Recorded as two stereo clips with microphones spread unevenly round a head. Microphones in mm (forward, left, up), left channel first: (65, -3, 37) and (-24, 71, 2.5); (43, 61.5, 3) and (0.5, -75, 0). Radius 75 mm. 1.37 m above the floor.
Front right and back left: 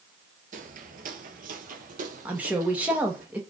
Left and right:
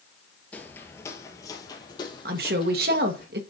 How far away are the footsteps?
About 1.7 m.